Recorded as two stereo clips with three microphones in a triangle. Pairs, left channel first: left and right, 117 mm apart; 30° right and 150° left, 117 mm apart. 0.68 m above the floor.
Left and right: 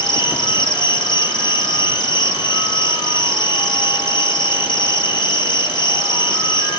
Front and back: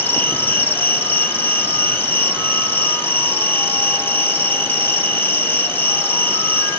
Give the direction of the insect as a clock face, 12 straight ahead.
11 o'clock.